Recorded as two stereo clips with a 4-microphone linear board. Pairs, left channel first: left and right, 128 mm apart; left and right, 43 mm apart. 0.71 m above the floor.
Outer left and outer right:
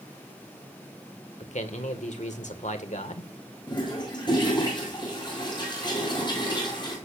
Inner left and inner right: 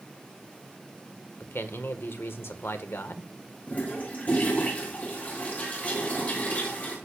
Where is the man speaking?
65° left (ahead or behind), 1.8 m.